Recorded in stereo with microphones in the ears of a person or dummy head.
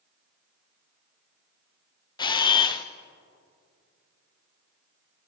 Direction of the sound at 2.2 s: 25° left (ahead or behind).